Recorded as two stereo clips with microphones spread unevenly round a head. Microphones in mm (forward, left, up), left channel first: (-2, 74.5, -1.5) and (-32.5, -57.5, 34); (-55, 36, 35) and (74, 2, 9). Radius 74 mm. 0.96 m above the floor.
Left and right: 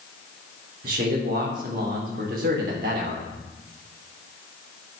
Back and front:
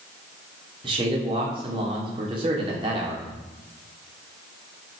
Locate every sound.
0.8 s a man speaking: 65° right, 3 m